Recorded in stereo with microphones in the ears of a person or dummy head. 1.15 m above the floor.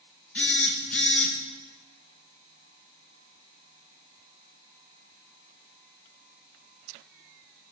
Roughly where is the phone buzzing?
Centre.